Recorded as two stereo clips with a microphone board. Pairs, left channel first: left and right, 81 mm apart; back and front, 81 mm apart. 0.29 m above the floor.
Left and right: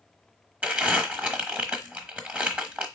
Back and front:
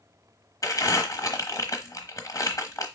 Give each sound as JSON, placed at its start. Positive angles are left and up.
{"t": 0.6, "sound": "crumpling", "azimuth_deg": -150, "distance_m": 1.0}